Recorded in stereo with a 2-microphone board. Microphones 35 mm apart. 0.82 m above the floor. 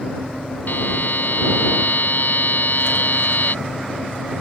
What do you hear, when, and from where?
0.7 s a buzzer: 60° left (ahead or behind)